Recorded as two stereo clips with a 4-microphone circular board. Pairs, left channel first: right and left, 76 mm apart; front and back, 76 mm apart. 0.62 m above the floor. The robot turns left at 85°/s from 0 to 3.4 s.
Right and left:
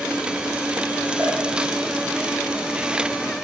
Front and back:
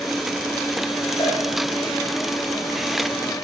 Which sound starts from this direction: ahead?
A cowbell, at 1.2 s.